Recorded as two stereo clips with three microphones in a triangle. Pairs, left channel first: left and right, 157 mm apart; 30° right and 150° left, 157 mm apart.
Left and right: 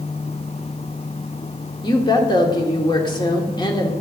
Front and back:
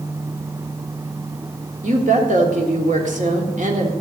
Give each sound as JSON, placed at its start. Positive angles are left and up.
{"t": 1.8, "sound": "a woman speaking", "azimuth_deg": 145, "distance_m": 1.6}